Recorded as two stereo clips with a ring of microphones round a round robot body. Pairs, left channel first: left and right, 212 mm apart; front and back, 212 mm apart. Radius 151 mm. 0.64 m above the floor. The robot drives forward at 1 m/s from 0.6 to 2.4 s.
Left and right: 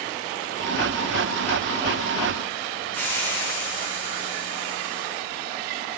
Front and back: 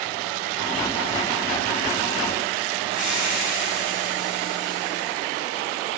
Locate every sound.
2.9 s a hiss: 95° right, 6 m